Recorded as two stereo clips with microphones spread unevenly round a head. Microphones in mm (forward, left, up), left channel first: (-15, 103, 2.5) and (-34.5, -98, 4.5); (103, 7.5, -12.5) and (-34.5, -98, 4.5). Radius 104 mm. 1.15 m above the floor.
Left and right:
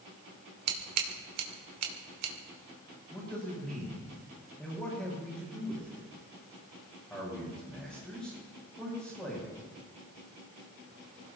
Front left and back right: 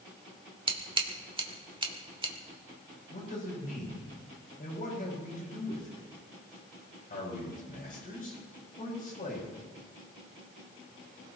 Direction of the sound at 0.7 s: 85° right.